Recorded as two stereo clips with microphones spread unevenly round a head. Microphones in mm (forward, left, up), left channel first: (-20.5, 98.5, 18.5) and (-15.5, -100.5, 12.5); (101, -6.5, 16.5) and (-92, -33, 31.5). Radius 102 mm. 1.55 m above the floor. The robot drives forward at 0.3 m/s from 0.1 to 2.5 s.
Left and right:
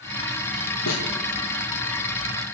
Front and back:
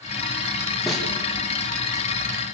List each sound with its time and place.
0.9 s a snare drum: 100° left, 4 m